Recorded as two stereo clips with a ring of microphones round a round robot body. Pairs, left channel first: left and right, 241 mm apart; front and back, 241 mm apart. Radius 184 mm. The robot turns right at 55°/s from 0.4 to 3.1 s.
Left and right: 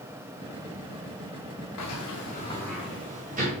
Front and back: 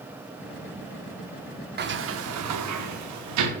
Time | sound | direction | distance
1.8 | a sliding door | 130° left | 0.7 m